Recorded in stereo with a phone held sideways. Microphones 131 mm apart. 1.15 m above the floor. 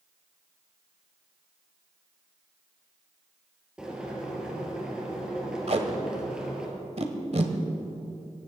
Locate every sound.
3.8 s boiling: 5° right (ahead or behind), 4 m
5.7 s tape being pulled: 55° right (ahead or behind), 1.6 m